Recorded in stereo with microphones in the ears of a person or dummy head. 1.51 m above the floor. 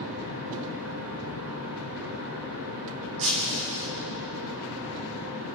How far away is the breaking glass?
About 4 m.